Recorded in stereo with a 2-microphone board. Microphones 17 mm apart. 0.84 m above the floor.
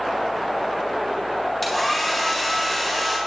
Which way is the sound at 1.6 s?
5° right (ahead or behind).